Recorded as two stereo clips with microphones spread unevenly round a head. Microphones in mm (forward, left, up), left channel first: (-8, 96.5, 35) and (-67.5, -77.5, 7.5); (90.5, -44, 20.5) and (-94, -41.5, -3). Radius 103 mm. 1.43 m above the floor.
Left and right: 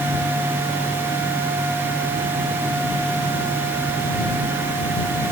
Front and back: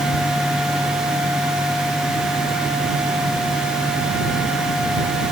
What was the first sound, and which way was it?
Only background noise.